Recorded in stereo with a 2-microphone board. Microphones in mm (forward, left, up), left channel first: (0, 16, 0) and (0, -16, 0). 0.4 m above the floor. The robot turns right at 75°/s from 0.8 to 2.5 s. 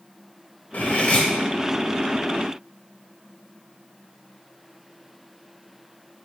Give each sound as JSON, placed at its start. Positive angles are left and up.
{"t": 0.7, "sound": "cutlery clinking", "azimuth_deg": 110, "distance_m": 0.9}